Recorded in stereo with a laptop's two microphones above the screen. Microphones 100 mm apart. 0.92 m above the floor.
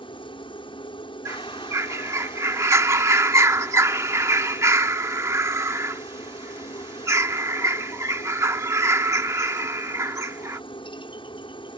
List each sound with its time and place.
0.0 s a helicopter: 55° left (ahead or behind)
1.2 s a bird: 30° right (ahead or behind)